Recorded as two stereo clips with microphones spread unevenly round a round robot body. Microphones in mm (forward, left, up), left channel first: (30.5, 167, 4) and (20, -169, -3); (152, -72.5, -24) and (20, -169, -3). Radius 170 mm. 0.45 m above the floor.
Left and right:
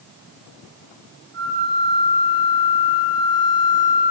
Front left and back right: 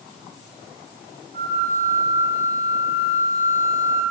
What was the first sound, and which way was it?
A flute, 170° left.